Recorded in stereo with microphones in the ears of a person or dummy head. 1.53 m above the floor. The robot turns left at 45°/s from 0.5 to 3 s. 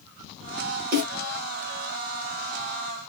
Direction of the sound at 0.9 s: 50° right (ahead or behind).